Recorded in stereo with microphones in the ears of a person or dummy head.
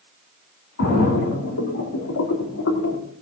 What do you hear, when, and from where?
0.8 s a splash: 65° left (ahead or behind), 2.5 m